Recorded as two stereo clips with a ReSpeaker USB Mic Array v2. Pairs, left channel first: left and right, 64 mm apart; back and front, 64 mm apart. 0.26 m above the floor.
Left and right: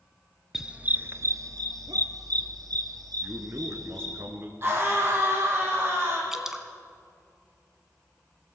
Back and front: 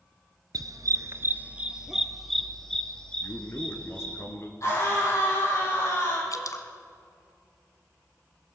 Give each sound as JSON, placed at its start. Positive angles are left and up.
{"t": 0.5, "sound": "a dog barking", "azimuth_deg": -5, "distance_m": 1.1}
{"t": 3.2, "sound": "a man speaking", "azimuth_deg": -135, "distance_m": 3.0}
{"t": 4.6, "sound": "a scream", "azimuth_deg": -140, "distance_m": 9.5}
{"t": 6.3, "sound": "dripping", "azimuth_deg": -170, "distance_m": 1.5}